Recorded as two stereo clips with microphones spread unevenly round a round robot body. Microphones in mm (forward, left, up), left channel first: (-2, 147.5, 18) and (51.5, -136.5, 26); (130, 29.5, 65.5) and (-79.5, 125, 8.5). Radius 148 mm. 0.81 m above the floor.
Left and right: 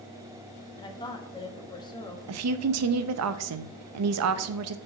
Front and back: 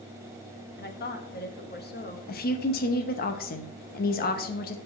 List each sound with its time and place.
0.8 s a woman speaking: 30° left, 1.0 m
2.3 s a woman speaking: 80° right, 0.6 m